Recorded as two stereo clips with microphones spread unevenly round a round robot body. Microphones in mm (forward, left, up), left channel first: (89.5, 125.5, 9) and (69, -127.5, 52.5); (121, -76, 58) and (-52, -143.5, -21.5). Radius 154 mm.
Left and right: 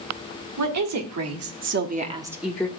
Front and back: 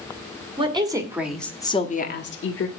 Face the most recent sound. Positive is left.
turn(degrees=10)